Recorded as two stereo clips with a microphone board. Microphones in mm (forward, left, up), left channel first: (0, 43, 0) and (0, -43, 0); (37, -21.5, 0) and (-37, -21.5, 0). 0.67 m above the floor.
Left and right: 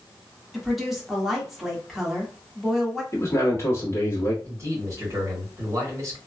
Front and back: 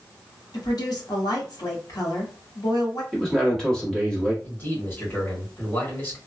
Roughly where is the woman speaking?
Ahead.